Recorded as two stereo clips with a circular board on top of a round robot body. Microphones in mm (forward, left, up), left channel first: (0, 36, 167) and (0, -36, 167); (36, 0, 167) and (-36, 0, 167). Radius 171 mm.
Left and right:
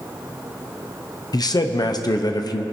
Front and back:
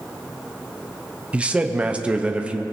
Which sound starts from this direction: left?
A man speaking, at 1.3 s.